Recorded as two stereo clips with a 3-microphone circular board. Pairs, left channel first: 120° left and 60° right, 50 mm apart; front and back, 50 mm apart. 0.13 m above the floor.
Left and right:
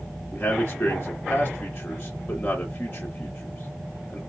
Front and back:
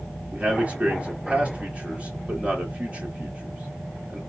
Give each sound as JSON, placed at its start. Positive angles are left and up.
{"t": 0.3, "sound": "a man speaking", "azimuth_deg": 140, "distance_m": 1.7}